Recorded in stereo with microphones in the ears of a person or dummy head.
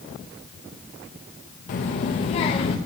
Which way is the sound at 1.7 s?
35° left (ahead or behind).